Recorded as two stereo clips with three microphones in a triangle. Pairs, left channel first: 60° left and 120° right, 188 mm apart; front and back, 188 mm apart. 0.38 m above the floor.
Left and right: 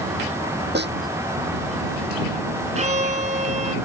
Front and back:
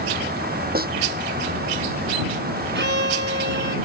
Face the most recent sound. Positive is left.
turn(degrees=-170)